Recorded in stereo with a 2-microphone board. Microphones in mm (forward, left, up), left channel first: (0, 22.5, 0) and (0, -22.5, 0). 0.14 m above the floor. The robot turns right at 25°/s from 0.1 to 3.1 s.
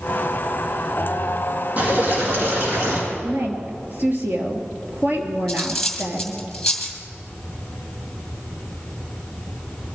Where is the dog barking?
I don't hear a dog barking.